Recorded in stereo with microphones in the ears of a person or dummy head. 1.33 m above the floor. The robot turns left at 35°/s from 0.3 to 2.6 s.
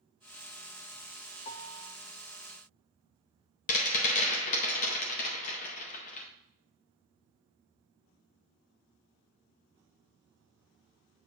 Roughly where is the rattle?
Left.